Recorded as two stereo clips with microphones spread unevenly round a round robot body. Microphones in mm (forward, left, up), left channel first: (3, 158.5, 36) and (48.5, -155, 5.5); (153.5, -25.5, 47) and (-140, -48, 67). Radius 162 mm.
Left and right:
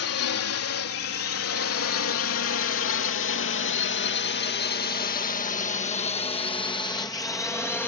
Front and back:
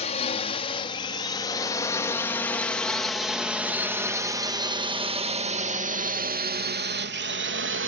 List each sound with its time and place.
0.0 s a drone: 65° left; by 7.9 s 175° right